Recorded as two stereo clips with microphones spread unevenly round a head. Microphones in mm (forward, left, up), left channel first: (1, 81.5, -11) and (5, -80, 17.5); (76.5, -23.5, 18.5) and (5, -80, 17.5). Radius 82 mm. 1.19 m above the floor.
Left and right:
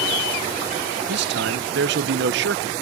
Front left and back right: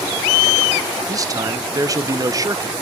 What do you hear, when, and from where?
1.1 s a man speaking: 100° right, 1.0 m